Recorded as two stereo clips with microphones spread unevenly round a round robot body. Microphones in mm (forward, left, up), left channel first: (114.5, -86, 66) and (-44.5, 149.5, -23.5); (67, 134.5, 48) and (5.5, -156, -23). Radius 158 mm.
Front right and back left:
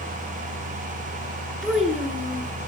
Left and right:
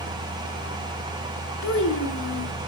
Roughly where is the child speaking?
Ahead left.